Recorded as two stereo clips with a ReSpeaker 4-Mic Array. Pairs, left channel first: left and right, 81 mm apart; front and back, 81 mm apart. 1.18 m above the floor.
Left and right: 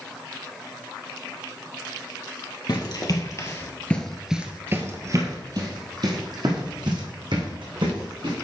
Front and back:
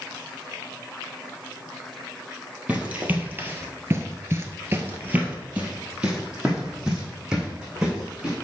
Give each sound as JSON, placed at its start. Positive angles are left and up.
{"t": 2.7, "sound": "running footsteps", "azimuth_deg": 110, "distance_m": 2.5}